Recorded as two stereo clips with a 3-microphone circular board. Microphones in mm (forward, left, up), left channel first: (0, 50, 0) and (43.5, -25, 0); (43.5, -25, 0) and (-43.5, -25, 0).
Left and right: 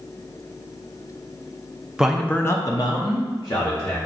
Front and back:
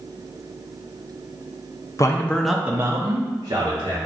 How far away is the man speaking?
About 0.6 m.